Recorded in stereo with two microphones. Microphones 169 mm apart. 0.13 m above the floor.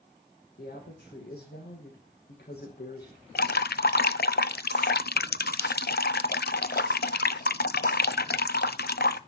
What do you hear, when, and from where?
0.6 s a woman speaking: 75° left (ahead or behind), 5 m
3.4 s dripping: 75° left (ahead or behind), 0.5 m